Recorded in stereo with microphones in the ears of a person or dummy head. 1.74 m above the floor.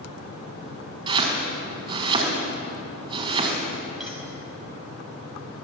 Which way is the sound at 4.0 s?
Centre (ahead or behind).